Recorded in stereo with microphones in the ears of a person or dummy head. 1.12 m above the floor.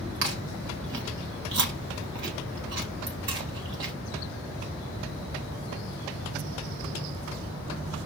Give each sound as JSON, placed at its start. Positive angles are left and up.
{"t": 0.2, "sound": "chewing", "side_deg": -60, "distance_m": 1.2}